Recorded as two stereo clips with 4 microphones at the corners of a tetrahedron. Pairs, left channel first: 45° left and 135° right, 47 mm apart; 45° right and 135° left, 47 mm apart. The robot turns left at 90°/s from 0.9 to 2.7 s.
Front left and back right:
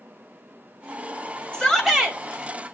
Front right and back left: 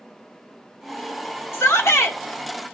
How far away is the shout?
About 3 m.